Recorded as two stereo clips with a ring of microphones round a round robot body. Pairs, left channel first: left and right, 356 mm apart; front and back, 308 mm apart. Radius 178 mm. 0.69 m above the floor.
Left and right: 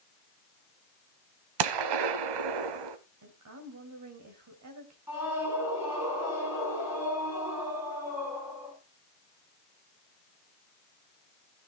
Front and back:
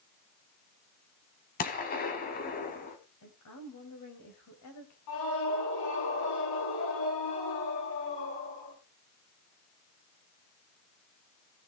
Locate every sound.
1.6 s a gunshot: 65° right, 1.2 m
3.2 s a woman speaking: 45° right, 3 m
5.1 s a scream: 5° right, 8.5 m